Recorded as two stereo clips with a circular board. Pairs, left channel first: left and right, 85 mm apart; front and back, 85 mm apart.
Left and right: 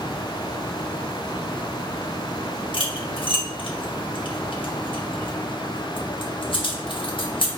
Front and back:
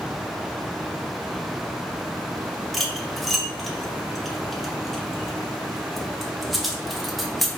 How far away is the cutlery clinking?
About 0.8 m.